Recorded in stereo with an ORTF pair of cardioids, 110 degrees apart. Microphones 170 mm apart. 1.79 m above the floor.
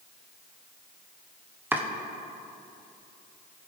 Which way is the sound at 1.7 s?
10° right.